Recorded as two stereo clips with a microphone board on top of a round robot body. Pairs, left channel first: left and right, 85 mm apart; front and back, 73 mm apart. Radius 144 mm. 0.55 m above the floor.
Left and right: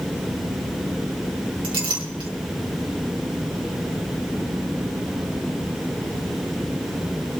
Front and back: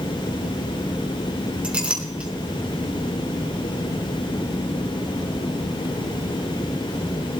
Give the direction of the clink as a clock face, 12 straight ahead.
4 o'clock.